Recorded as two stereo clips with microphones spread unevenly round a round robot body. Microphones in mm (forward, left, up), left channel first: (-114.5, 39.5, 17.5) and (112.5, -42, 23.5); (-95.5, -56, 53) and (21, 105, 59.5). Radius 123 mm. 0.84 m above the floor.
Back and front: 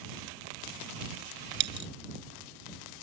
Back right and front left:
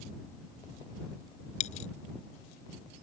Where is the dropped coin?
65° right.